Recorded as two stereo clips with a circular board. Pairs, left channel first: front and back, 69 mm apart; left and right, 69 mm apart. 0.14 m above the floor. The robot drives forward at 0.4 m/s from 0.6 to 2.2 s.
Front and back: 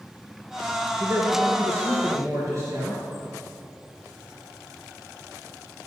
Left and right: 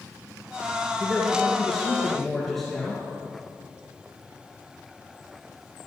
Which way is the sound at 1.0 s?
Straight behind.